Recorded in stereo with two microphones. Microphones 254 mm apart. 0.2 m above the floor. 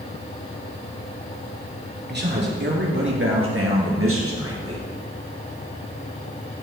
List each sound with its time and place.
2.1 s a man speaking: 40° right (ahead or behind), 3 m; by 4.9 s 65° right (ahead or behind), 3 m